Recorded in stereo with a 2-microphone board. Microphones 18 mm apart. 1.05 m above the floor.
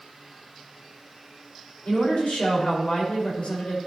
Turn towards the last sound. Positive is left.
turn(degrees=85)